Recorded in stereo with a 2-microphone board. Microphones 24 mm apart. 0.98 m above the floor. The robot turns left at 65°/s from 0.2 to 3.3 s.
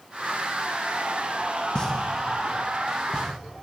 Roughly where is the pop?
Left.